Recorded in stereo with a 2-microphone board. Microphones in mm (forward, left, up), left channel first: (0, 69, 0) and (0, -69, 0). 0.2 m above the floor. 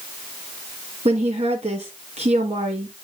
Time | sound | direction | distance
1.1 | a woman speaking | 50° right (ahead or behind) | 2.5 m